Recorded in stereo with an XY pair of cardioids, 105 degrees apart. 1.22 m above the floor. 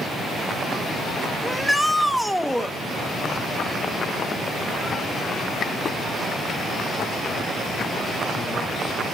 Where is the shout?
Straight ahead, 1.2 m.